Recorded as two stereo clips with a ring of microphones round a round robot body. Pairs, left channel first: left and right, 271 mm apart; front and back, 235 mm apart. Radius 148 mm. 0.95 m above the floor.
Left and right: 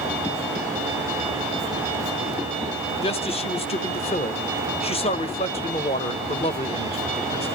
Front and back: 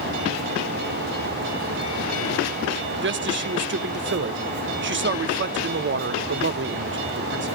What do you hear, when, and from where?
3.0 s a man speaking: 155° left, 1.3 m